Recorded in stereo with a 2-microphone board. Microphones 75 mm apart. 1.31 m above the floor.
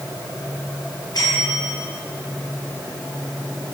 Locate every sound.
1.1 s a bell: 55° left (ahead or behind), 6.5 m